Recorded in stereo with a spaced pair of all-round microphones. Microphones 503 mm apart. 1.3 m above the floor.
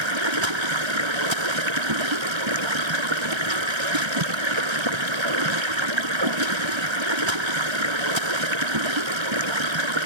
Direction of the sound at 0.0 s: 70° right (ahead or behind).